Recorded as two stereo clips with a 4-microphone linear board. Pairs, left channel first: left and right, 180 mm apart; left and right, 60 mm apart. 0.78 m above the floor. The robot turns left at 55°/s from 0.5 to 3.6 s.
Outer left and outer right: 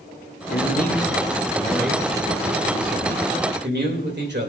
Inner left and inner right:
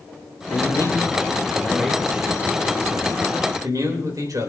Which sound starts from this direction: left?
A man speaking, at 0.5 s.